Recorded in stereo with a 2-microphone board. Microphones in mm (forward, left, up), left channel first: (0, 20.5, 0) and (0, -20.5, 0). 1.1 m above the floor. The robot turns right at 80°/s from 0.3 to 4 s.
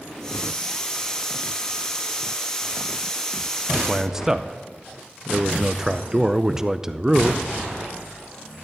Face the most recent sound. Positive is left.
turn(degrees=-10)  # may be behind; listen again after turning